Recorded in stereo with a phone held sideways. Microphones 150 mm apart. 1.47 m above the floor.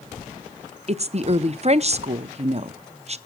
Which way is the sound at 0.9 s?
45° right (ahead or behind).